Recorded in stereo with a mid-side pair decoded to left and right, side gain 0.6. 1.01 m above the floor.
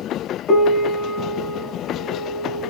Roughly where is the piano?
Ahead left.